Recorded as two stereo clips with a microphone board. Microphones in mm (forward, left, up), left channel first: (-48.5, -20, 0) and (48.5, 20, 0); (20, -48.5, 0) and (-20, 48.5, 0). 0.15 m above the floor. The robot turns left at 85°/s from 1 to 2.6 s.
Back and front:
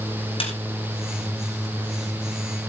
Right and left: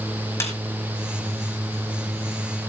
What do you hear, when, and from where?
0.4 s a snare drum: 130° right, 2 m